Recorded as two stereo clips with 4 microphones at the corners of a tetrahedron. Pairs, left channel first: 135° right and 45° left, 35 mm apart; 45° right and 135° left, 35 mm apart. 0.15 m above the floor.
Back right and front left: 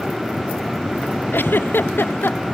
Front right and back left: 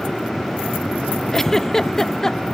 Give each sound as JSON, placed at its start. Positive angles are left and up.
{"t": 1.3, "sound": "a giggle", "azimuth_deg": -125}